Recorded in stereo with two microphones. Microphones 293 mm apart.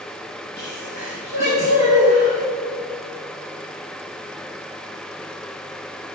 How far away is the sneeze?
About 4.5 m.